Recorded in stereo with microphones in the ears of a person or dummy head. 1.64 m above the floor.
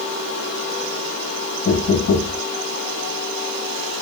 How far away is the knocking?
About 2.5 m.